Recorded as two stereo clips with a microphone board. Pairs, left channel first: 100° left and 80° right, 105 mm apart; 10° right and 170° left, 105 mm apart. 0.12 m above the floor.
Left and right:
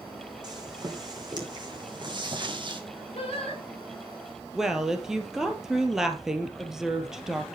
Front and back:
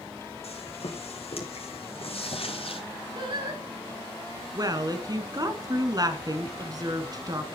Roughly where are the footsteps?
Ahead right.